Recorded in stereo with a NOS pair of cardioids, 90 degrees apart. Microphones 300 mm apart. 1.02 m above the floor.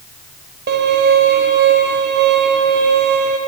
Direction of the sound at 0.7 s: 35° right.